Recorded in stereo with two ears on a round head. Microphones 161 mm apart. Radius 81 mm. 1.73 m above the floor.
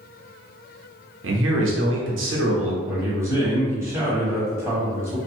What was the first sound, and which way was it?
A man speaking, 80° right.